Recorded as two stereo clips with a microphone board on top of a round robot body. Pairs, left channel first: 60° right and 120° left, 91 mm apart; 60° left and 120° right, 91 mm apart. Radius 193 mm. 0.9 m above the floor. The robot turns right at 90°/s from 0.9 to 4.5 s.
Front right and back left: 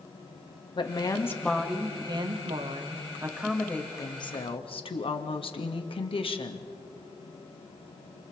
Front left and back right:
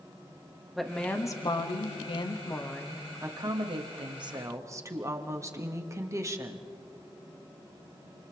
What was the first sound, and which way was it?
A woman speaking, 30° right.